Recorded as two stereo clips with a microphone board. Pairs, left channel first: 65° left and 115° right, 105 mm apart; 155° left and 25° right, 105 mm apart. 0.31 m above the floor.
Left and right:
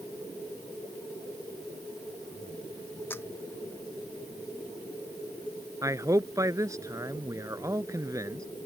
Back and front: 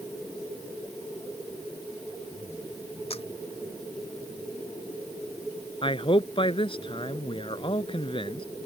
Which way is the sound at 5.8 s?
170° right.